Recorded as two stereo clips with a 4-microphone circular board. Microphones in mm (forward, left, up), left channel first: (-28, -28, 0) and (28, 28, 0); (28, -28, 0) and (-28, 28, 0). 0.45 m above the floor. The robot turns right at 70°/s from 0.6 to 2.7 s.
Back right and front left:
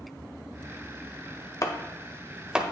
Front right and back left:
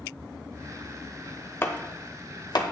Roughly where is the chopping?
Right.